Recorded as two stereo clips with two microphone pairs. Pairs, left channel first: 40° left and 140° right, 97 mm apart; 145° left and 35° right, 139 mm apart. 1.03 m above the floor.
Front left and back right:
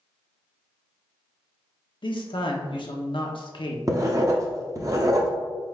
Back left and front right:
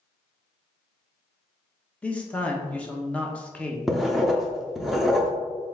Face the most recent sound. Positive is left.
turn(degrees=-125)